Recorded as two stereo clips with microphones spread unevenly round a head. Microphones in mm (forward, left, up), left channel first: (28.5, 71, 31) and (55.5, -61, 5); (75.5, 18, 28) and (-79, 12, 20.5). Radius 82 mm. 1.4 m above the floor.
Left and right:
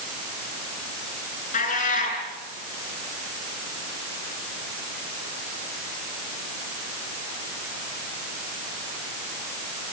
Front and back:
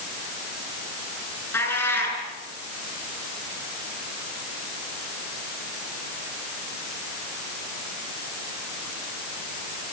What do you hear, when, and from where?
1.5 s a cat meowing: 80° left, 7.5 m